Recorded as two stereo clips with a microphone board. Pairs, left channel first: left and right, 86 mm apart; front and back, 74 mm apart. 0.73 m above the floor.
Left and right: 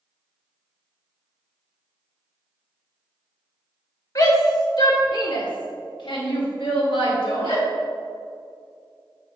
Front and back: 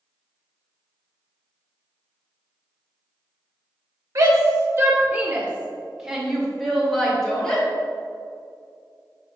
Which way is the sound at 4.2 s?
140° left.